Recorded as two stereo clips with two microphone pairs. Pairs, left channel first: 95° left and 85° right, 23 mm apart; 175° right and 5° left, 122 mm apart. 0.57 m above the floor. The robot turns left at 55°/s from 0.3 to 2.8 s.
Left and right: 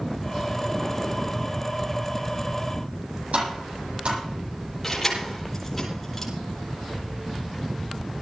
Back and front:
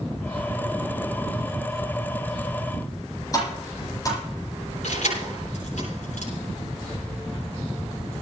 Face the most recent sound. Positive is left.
turn(degrees=170)